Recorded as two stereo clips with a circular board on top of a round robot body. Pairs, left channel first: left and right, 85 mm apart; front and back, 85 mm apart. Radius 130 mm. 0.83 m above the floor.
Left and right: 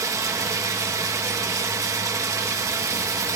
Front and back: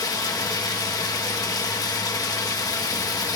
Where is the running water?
40° right, 1.3 m.